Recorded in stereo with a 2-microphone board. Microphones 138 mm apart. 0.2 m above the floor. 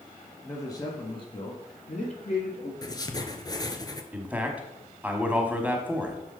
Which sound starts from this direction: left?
Writing, at 2.8 s.